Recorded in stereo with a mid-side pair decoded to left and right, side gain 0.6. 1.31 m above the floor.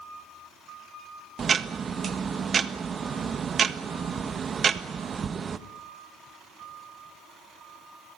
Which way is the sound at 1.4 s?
35° right.